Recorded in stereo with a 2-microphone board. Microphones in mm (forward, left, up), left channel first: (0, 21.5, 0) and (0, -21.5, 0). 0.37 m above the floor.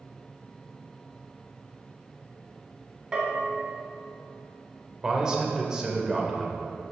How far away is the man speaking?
About 1.4 m.